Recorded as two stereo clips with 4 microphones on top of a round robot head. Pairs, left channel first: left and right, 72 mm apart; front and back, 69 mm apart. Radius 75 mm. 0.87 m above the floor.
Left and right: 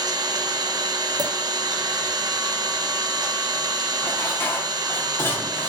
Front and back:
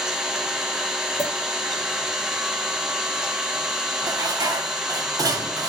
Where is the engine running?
95° right, 0.7 m.